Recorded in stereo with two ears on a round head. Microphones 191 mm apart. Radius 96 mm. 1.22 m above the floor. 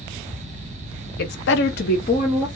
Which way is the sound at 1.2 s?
50° left (ahead or behind).